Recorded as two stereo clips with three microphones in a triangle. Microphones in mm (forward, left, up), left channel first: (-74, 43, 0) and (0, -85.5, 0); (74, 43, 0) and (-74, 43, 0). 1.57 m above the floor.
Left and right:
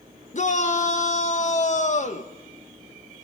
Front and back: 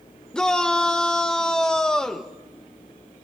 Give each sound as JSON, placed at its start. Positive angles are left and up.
{"t": 0.3, "sound": "a shout", "azimuth_deg": 85, "distance_m": 1.9}